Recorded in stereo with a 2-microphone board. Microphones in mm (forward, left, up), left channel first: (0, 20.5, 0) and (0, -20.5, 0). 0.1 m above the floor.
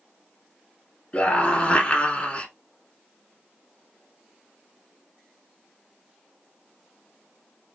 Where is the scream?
20° left (ahead or behind), 1.3 m.